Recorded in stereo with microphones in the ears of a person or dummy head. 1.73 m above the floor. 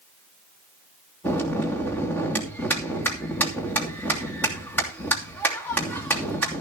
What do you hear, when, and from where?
1.2 s a bell: 10° left (ahead or behind), 3 m